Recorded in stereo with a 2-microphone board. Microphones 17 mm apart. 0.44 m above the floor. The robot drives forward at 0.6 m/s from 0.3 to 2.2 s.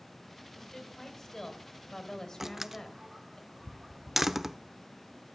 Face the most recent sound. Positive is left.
turn(degrees=-15)  # may be behind; listen again after turning